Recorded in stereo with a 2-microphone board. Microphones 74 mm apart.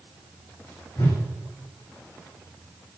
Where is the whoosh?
65° left (ahead or behind), 6 m.